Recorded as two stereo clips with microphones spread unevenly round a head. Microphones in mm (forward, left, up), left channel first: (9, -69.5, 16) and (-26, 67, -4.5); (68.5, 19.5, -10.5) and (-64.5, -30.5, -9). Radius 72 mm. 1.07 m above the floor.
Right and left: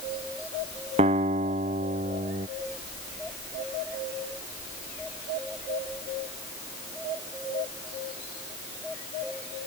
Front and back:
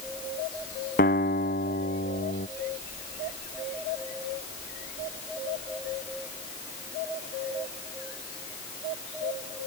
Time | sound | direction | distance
1.0 | a guitar | 55° left | ?